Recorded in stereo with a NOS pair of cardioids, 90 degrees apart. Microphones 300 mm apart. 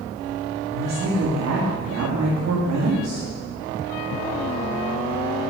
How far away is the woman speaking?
About 1.9 m.